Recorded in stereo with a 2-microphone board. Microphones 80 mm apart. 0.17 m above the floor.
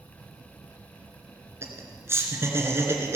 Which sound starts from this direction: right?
Laughter, at 1.6 s.